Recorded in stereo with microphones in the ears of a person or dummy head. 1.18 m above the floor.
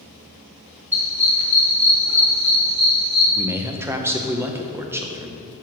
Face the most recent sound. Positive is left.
turn(degrees=-10)  # may be behind; listen again after turning